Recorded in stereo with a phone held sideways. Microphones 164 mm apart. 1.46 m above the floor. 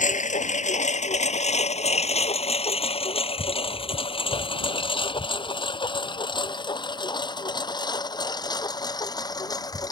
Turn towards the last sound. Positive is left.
turn(degrees=25)  # may be behind; listen again after turning